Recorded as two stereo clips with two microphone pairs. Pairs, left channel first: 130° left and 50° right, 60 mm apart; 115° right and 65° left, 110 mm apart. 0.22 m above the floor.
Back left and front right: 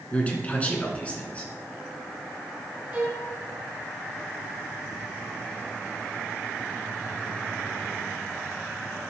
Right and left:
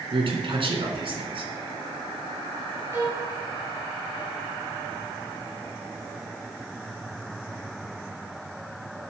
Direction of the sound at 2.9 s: Straight ahead.